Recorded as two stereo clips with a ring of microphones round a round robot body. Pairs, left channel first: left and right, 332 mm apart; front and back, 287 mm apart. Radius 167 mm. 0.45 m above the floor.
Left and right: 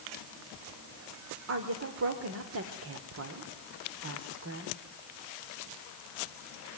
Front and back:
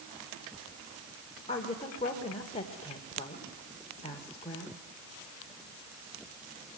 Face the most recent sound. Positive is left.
turn(degrees=-65)